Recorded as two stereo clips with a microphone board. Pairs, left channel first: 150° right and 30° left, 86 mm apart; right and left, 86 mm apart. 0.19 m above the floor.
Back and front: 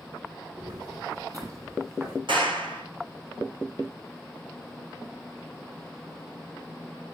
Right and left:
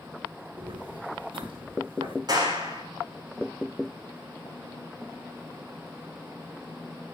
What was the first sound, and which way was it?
Footsteps, 70° left.